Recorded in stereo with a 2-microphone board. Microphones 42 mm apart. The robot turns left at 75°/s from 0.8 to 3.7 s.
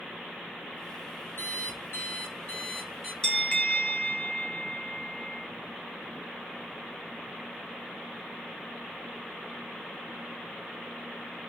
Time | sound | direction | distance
1.4 | an alarm clock | 115° left | 3.5 m
3.2 | a bell | 165° left | 0.8 m